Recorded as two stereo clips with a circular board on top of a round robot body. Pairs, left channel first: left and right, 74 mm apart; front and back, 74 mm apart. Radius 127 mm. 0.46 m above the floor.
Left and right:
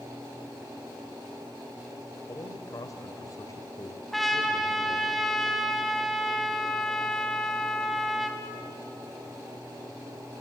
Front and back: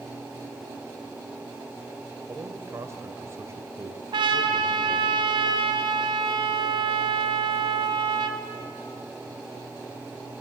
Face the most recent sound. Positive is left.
turn(degrees=180)